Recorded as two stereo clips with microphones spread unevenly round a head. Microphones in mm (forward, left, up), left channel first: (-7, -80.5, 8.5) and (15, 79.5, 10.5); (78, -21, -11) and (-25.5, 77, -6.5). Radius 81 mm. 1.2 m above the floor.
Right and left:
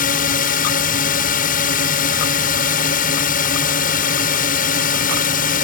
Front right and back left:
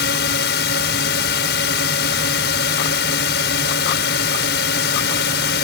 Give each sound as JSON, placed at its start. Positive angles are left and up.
{"t": 0.0, "sound": "a drone", "azimuth_deg": -60}